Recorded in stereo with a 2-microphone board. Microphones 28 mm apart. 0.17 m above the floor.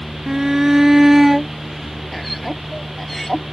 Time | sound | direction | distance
0.3 | a shout | 20° right (ahead or behind) | ?